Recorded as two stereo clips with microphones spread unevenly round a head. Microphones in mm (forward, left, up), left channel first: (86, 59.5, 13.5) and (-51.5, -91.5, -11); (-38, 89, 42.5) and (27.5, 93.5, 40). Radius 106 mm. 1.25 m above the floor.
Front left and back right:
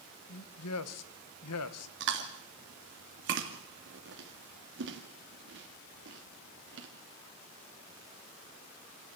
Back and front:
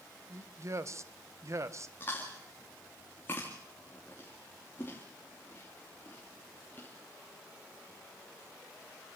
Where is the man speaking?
45° left, 1.3 m.